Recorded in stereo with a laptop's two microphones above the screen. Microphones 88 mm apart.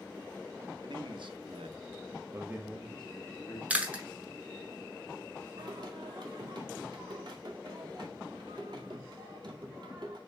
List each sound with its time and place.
0.8 s a man speaking: 60° right (ahead or behind), 1.4 m; by 3.6 s 20° left (ahead or behind), 1.3 m
3.7 s chewing: 15° right (ahead or behind), 0.8 m
5.6 s singing: 55° right (ahead or behind), 1.9 m